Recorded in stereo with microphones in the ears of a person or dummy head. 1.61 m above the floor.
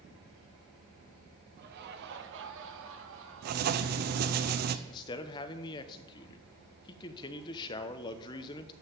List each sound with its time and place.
1.6 s laughter: 55° right (ahead or behind), 1.3 m; by 4.4 s 85° right, 3 m
3.4 s writing: 50° right (ahead or behind), 0.7 m
4.9 s a man speaking: 25° left (ahead or behind), 0.9 m